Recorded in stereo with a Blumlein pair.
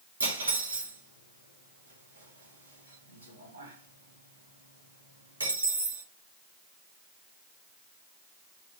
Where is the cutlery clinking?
70° right, 1.9 m.